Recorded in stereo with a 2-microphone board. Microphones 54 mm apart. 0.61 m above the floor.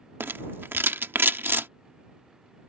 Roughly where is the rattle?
Right.